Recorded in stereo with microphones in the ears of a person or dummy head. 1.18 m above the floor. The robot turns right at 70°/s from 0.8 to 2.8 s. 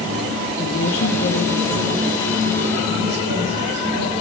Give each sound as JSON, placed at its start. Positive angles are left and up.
{"t": 0.6, "sound": "a woman speaking", "azimuth_deg": 95, "distance_m": 1.9}